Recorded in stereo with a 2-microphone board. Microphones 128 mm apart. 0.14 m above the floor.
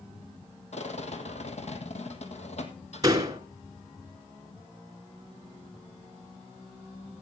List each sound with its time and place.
0.7 s a rattle: 60° left (ahead or behind), 1.6 m
3.0 s a door slam: 30° right (ahead or behind), 1.4 m